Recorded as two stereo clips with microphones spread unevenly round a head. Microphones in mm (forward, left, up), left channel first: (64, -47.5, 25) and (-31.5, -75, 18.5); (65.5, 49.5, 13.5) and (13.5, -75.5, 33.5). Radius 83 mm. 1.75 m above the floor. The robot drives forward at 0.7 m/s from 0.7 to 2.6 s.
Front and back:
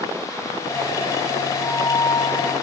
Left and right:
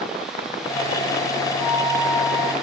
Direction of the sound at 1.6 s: 30° right.